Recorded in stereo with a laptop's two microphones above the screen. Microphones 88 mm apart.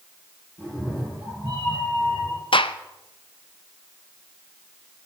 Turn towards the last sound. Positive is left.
turn(degrees=75)  # may be behind; listen again after turning